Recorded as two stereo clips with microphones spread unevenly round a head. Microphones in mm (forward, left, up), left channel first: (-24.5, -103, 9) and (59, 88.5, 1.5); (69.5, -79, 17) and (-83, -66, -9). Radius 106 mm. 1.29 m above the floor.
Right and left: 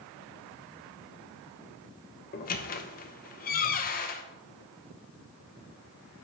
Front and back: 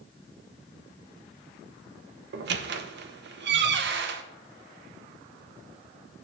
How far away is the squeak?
About 0.6 m.